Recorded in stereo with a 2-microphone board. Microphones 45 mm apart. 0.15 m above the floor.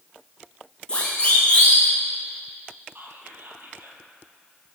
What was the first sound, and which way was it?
A siren, 25° left (ahead or behind).